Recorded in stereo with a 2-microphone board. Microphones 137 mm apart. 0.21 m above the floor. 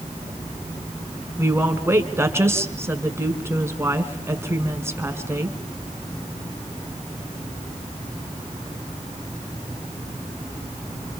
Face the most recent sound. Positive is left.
turn(degrees=-20)  # may be behind; listen again after turning